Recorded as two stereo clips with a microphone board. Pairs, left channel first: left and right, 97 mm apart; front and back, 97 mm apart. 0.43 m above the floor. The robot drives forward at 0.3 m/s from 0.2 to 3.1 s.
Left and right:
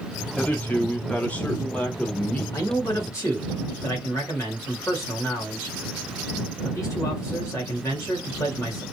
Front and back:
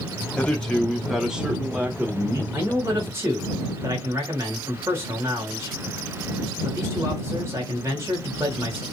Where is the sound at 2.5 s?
125° left, 1.2 m; by 8.8 s 130° left, 1.3 m.